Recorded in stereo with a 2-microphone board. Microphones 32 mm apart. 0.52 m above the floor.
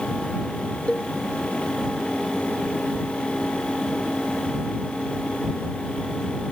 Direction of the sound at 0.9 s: 35° left (ahead or behind).